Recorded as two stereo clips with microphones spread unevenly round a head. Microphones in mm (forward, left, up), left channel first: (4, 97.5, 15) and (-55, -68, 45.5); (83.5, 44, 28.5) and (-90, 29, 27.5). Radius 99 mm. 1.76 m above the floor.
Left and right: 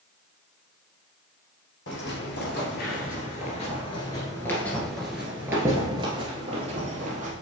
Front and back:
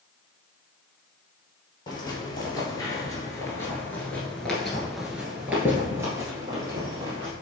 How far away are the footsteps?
About 2.5 m.